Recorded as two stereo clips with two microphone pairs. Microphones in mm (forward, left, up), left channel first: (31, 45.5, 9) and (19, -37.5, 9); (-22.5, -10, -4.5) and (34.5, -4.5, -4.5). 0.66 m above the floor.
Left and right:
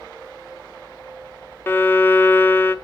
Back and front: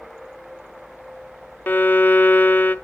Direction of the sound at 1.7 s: 140° left.